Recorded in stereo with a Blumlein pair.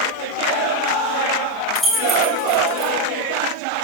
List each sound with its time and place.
1.8 s keys jangling: 5° left, 5.5 m